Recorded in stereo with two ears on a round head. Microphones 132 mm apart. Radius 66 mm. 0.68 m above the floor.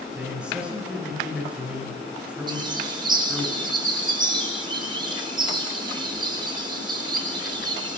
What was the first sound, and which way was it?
A man speaking, 10° right (ahead or behind).